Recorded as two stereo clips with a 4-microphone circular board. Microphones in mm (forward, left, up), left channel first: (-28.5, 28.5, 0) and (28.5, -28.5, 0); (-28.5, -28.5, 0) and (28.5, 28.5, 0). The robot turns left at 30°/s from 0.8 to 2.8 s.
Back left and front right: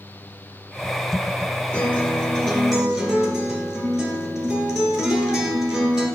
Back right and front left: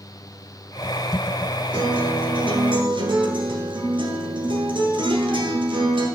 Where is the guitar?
70° left, 1.5 m; by 6.1 s 40° left, 1.5 m.